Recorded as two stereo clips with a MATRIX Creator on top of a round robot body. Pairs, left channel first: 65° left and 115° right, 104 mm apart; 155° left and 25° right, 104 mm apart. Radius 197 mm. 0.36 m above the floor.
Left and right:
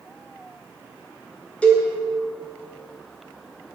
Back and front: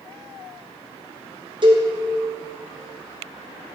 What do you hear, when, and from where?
1.6 s a cowbell: 5° right, 1.7 m